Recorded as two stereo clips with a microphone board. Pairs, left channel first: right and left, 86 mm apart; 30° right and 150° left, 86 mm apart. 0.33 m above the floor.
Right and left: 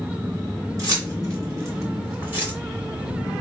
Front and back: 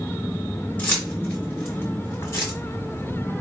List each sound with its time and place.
0.8 s keys jangling: 40° left, 2 m; by 2.5 s 25° left, 1.3 m